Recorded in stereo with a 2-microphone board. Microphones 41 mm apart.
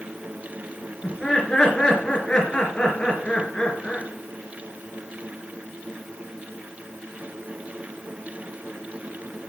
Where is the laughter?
20° left (ahead or behind), 3 m.